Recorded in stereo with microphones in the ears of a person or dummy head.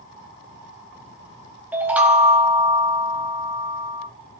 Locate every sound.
1.7 s a chime: 5° right (ahead or behind), 0.6 m